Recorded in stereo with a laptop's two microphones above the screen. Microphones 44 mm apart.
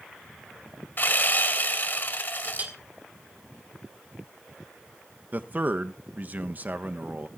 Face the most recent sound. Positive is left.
turn(degrees=-40)  # may be behind; listen again after turning